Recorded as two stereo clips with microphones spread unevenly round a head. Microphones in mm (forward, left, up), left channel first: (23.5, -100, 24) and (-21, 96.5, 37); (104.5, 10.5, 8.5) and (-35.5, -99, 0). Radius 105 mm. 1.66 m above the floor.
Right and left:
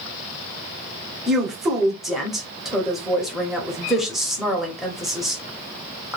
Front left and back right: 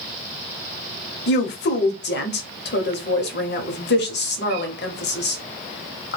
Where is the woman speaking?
15° left, 0.8 m.